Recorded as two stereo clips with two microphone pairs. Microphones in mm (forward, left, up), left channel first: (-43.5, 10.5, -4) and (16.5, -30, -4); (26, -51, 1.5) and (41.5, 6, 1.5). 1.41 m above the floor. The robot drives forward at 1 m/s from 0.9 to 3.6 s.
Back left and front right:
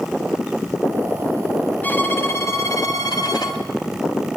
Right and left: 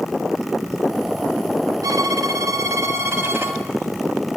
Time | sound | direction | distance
1.8 | a violin | 80° left | 2 m